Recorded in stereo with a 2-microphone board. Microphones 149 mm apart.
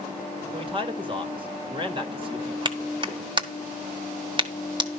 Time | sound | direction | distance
0.5 | a man speaking | 35° right (ahead or behind) | 1.6 m
2.6 | a clap | 35° right (ahead or behind) | 1.4 m